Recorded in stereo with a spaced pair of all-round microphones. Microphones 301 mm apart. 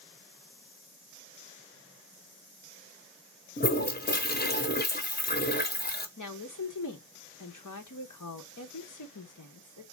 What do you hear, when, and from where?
3.6 s a toilet flushing: 30° left (ahead or behind), 1.0 m
6.2 s a woman speaking: 90° left, 1.3 m